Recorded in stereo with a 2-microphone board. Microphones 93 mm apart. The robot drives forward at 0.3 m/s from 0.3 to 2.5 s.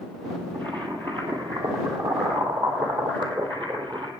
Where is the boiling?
65° right (ahead or behind), 2.5 m.